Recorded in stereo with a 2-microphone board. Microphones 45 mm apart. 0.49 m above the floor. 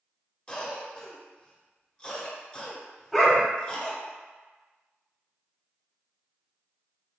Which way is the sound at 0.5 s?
25° left (ahead or behind).